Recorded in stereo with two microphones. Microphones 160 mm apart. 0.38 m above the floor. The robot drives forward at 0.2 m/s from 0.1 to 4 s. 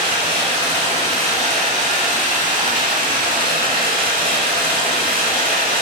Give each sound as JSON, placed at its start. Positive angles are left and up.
{"t": 0.0, "sound": "running water", "side_deg": -35, "distance_m": 1.2}